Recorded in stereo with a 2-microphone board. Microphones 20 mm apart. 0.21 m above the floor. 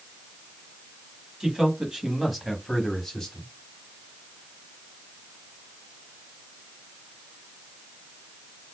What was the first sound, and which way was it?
A man speaking, 30° right (ahead or behind).